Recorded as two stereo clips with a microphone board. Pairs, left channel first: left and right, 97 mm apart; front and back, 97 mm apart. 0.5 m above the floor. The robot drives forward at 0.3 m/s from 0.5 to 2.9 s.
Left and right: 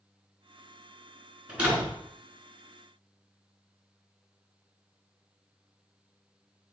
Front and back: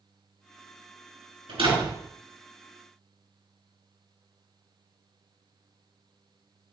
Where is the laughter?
I don't hear laughter.